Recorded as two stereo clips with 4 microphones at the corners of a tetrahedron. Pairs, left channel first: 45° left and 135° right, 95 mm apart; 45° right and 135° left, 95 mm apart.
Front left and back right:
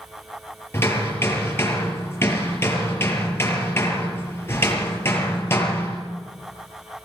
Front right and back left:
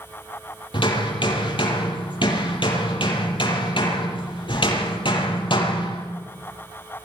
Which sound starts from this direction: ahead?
Hammering, at 0.7 s.